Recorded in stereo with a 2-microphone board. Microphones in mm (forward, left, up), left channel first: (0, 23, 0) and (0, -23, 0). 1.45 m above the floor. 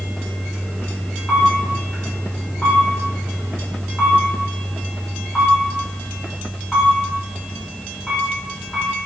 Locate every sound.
1.3 s a camera shutter: 20° left (ahead or behind), 1.6 m